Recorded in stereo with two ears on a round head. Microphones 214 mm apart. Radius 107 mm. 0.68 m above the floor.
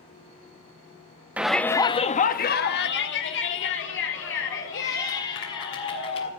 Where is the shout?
5° right (ahead or behind), 0.8 m; by 6.3 s 55° left (ahead or behind), 3.5 m.